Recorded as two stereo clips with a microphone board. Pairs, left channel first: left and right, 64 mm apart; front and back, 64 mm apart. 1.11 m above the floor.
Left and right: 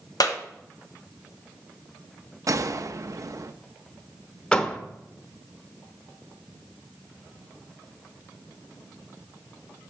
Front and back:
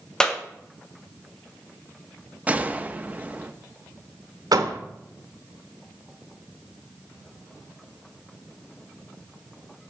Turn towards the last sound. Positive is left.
turn(degrees=165)